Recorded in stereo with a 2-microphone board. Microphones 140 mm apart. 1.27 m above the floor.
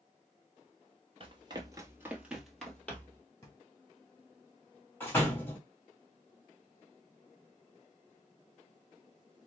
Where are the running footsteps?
40° right (ahead or behind), 1.6 m; by 3.2 s 15° left (ahead or behind), 1.9 m.